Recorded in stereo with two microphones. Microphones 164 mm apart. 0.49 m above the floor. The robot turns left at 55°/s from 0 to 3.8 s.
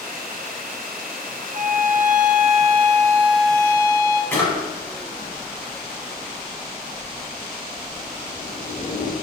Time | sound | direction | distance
1.5 | a violin | 70° right | 0.5 m
4.3 | a drawer | 15° left (ahead or behind) | 1.1 m